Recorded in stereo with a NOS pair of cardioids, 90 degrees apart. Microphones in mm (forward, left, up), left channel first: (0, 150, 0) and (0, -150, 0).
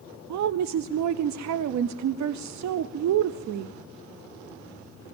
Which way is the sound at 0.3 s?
70° right.